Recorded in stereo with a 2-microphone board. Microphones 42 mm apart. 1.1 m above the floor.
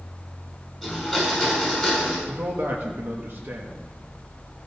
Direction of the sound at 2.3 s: 55° right (ahead or behind).